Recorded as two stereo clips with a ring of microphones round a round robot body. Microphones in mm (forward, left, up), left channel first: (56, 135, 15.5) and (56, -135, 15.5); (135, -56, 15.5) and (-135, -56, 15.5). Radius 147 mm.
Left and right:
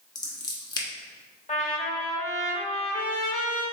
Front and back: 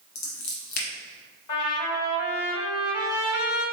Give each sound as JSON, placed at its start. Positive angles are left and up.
{"t": 0.1, "sound": "scissors", "azimuth_deg": 15, "distance_m": 1.3}
{"t": 1.5, "sound": "a trumpet", "azimuth_deg": 25, "distance_m": 1.8}